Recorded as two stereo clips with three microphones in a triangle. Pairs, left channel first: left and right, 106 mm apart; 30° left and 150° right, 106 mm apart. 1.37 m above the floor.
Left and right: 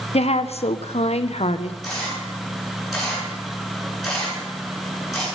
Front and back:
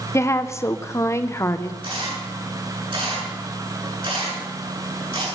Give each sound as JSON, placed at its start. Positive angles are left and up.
{"t": 0.1, "sound": "a woman speaking", "azimuth_deg": 90, "distance_m": 0.9}
{"t": 1.8, "sound": "a camera shutter", "azimuth_deg": 180, "distance_m": 9.0}